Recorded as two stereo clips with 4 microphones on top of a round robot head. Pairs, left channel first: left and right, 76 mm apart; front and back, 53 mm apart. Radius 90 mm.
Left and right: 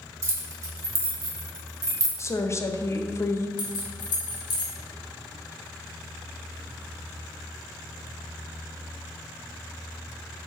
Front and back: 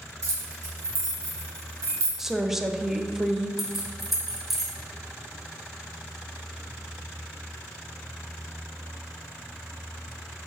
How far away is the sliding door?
No sliding door in this recording.